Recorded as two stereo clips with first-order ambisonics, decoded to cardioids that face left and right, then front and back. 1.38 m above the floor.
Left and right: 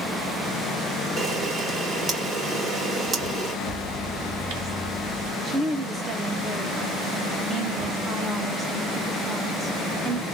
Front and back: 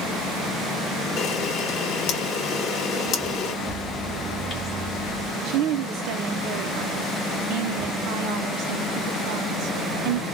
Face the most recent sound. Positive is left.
turn(degrees=-165)